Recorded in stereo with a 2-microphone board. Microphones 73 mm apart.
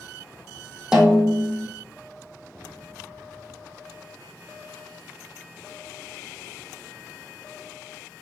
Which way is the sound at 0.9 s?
10° right (ahead or behind).